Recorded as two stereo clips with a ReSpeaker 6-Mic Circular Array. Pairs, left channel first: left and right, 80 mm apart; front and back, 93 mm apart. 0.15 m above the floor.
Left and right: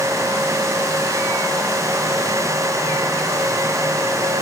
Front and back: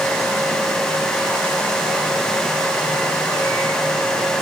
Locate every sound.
Only background noise.